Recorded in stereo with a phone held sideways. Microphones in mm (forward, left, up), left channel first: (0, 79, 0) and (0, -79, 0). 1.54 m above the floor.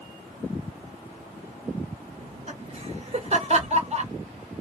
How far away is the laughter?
About 1.9 m.